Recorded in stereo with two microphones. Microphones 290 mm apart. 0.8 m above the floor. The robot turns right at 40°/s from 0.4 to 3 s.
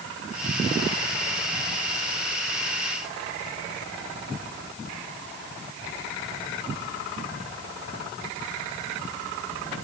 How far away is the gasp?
No gasp in this recording.